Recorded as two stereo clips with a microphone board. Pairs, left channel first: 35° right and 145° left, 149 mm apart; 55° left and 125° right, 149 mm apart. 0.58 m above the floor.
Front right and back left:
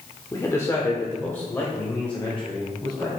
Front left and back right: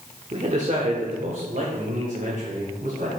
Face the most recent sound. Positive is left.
turn(degrees=-115)